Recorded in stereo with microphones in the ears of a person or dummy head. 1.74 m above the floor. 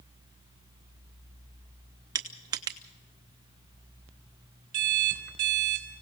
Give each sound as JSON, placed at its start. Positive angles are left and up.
{"t": 2.1, "sound": "crushing", "side_deg": -15, "distance_m": 0.6}
{"t": 4.7, "sound": "an alarm clock", "side_deg": -55, "distance_m": 3.0}